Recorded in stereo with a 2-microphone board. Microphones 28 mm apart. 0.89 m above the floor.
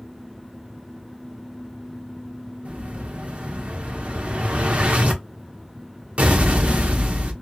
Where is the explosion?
55° right (ahead or behind), 0.8 m.